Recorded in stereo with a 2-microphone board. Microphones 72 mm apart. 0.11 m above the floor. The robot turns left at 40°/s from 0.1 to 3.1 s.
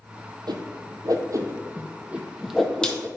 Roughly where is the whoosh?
Right.